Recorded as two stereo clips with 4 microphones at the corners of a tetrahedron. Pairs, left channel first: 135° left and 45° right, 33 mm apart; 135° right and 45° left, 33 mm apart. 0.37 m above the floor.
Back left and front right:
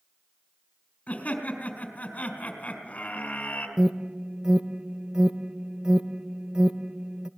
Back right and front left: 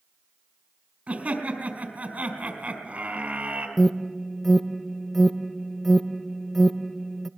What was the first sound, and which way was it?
Laughter, 90° left.